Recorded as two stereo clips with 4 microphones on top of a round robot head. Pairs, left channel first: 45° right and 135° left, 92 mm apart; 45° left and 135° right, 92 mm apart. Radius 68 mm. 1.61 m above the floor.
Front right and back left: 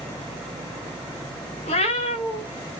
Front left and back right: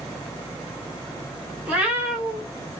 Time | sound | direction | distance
1.6 | a cat meowing | 60° right | 3.5 m